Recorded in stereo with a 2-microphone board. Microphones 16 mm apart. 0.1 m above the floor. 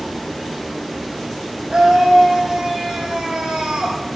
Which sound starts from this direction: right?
A scream, at 1.7 s.